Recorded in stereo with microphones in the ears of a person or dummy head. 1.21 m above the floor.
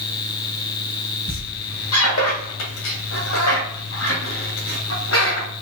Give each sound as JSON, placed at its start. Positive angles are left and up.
{"t": 1.3, "sound": "a squeak", "side_deg": 85, "distance_m": 1.6}